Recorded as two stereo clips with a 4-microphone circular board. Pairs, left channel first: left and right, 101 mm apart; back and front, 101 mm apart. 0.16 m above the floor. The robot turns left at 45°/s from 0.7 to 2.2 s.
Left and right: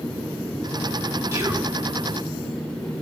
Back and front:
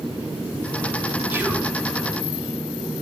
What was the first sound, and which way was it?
Whispering, 50° right.